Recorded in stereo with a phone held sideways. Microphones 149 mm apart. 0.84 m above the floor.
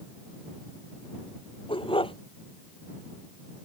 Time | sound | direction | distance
1.7 | a dog barking | 35° left (ahead or behind) | ?